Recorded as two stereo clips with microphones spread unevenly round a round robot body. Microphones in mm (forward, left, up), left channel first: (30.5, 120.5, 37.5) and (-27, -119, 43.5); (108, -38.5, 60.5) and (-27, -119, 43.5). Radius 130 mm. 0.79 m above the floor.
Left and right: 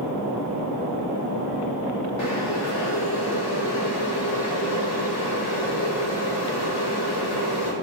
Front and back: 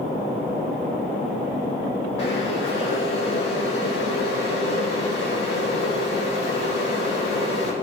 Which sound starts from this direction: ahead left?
Boiling, at 2.2 s.